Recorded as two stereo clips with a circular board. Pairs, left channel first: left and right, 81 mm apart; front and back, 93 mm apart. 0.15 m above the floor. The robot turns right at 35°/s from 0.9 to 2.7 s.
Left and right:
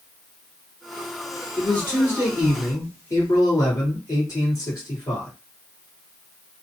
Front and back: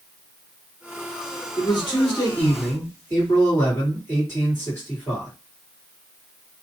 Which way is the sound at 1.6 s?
20° left.